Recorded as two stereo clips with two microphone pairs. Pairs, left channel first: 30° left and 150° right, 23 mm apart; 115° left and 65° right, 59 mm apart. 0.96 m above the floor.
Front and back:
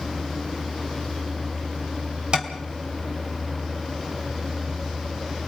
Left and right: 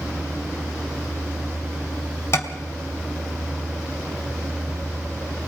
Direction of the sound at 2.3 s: 160° left.